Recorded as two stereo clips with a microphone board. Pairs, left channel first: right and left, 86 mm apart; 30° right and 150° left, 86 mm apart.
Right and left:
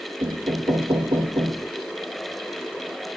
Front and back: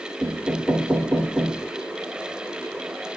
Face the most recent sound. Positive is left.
turn(degrees=75)